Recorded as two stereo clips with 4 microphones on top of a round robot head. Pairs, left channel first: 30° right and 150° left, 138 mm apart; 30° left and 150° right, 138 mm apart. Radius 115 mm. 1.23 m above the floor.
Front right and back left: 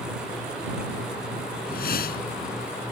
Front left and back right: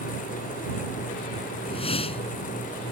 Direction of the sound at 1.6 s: 20° right.